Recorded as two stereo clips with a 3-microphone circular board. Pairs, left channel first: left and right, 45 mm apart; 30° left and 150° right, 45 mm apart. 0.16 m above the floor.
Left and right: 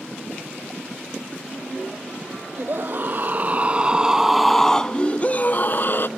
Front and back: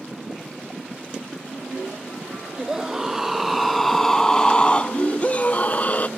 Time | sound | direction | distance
2.6 | a scream | 75° right | ?